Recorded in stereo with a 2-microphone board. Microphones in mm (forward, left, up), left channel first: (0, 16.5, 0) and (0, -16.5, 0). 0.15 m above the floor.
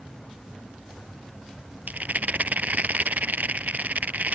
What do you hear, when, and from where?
1.9 s a rattle: 60° right (ahead or behind)